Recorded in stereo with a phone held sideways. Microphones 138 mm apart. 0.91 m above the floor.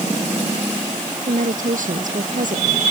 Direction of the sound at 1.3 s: 70° right (ahead or behind).